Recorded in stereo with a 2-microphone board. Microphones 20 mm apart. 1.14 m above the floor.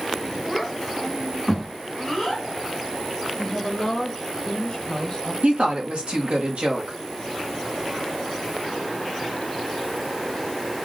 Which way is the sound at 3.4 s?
40° left (ahead or behind).